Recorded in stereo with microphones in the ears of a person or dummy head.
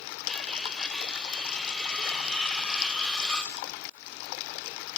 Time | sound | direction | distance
0.3 | cutlery clinking | centre (ahead or behind) | 1.2 m